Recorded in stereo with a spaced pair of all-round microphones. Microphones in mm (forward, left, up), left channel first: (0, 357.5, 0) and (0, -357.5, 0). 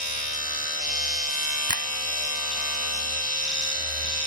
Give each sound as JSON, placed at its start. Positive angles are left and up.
{"t": 0.0, "sound": "a machine running", "side_deg": 65}
{"t": 1.7, "sound": "a finger snap", "side_deg": -30}